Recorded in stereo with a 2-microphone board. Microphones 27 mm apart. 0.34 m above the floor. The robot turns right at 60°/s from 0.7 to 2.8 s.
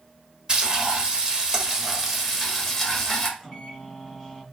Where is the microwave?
Centre (ahead or behind), 2.5 m.